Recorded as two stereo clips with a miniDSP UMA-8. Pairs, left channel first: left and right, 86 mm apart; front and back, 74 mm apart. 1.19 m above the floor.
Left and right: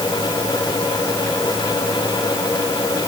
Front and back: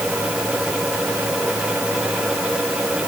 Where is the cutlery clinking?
I don't hear cutlery clinking.